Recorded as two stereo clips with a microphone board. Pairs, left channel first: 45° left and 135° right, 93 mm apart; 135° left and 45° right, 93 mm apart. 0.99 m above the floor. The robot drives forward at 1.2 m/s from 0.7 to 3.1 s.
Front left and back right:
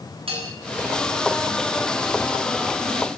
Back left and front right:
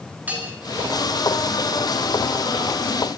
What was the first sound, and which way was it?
A bell, 120° right.